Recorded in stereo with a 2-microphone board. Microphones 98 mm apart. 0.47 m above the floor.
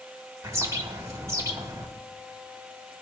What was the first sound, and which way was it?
A bird, 35° right (ahead or behind).